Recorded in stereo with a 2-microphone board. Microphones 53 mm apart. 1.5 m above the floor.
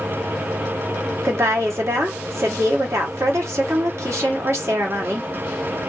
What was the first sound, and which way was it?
A woman speaking, 70° right (ahead or behind).